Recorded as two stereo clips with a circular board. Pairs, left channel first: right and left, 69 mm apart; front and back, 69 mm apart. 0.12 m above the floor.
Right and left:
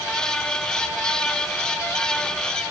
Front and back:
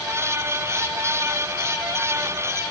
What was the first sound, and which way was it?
Only background noise.